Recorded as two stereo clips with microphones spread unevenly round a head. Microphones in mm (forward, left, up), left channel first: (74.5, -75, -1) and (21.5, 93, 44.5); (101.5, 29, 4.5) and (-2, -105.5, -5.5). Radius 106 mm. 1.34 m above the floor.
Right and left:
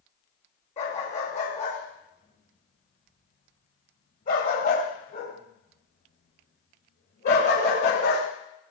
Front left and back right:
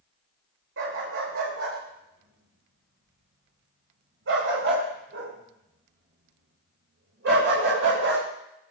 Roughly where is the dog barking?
Behind right.